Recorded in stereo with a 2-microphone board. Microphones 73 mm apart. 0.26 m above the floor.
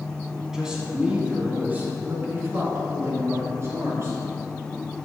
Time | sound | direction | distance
0.5 | a man speaking | 10° right (ahead or behind) | 1.8 m